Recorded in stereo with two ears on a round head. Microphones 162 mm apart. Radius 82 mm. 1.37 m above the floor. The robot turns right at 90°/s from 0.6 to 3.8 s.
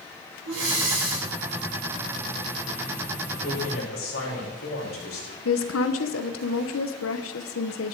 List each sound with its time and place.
0.5 s breathing: 95° right, 6 m; by 1.3 s 30° right, 6 m
3.4 s a man speaking: 50° left, 5 m; by 5.3 s 85° left, 5 m
5.5 s a woman speaking: 80° left, 0.9 m